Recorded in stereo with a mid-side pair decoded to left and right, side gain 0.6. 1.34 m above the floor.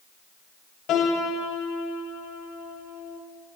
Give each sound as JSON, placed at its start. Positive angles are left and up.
{"t": 0.9, "sound": "a piano", "azimuth_deg": 60, "distance_m": 3.0}